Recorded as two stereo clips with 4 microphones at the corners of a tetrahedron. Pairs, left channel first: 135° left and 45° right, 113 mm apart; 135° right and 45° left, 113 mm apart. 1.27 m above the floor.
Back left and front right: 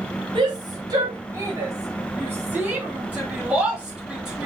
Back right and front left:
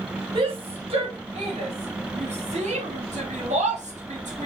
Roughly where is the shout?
Ahead.